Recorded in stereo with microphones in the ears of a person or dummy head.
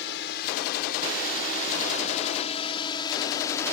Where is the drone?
60° left (ahead or behind); by 3.7 s 10° left (ahead or behind).